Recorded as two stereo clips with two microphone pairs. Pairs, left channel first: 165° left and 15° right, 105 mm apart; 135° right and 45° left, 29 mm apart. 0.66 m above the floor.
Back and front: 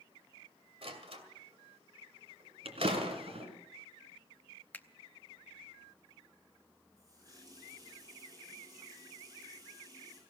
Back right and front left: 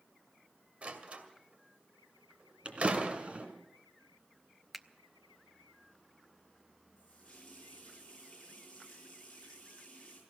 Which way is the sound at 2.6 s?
Straight ahead.